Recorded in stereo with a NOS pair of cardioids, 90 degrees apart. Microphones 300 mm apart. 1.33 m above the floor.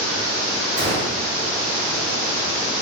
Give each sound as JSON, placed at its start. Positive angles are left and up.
{"t": 0.8, "sound": "a gunshot", "azimuth_deg": -35, "distance_m": 1.9}